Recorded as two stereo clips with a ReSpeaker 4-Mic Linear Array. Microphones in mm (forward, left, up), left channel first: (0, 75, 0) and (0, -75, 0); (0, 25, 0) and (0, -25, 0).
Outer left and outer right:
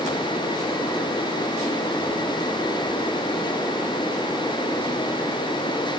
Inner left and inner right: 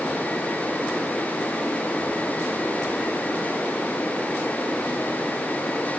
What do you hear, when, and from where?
Only background noise.